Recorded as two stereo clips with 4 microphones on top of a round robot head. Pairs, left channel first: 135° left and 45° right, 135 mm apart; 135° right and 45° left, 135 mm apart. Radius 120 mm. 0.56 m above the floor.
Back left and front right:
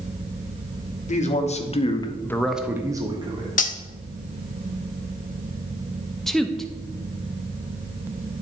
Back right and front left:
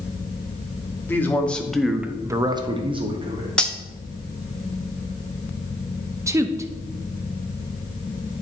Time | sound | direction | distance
1.1 | a man speaking | 150° left | 1.3 m
3.6 | cutlery clinking | 140° left | 0.9 m
6.3 | a woman speaking | 50° left | 0.6 m